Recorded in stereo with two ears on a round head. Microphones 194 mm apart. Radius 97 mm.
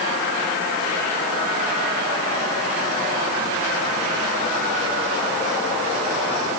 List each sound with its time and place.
Only background noise.